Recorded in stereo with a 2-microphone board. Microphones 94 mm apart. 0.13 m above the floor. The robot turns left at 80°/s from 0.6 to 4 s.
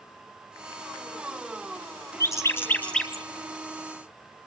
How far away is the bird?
About 1.7 m.